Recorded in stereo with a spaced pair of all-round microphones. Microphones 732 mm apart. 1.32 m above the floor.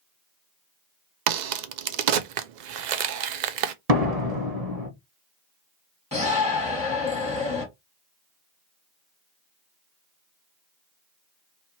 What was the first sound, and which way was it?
A crack, 85° right.